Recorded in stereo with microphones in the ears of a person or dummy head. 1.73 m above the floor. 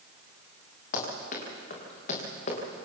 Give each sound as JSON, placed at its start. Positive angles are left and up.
{"t": 0.9, "sound": "running footsteps", "side_deg": 50, "distance_m": 7.0}